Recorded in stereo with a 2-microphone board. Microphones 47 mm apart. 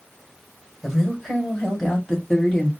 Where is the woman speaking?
5° right (ahead or behind), 1.7 m; by 2.7 s 15° left (ahead or behind), 2 m.